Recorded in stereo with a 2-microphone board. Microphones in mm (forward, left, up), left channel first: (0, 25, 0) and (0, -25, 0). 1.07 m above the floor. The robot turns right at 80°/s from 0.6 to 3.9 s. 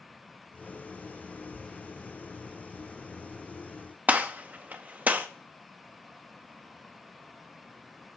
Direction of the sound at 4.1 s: 35° right (ahead or behind).